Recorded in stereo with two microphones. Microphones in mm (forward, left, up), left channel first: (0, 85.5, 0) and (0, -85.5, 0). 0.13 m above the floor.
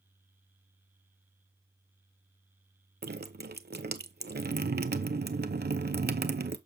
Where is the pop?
I don't hear a pop.